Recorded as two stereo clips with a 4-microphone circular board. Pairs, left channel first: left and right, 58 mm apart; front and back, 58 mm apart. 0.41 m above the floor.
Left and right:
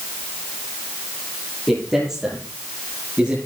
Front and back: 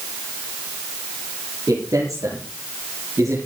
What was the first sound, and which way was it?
A man speaking, straight behind.